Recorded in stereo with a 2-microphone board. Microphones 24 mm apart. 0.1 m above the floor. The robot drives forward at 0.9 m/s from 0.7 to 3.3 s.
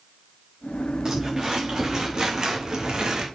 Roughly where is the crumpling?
Centre.